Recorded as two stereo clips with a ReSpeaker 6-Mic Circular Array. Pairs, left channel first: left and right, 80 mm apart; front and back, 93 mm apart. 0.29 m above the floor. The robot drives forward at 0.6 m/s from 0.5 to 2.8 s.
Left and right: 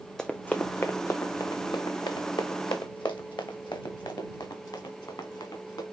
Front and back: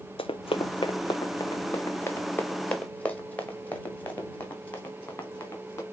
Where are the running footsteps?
5° left, 0.8 m; by 5.8 s 65° left, 4 m.